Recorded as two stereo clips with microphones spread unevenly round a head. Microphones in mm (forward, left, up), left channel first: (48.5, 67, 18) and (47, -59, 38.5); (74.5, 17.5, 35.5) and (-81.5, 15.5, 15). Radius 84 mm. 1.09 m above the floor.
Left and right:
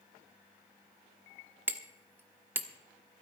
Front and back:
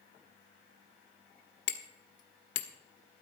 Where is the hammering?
20° right, 1.1 m.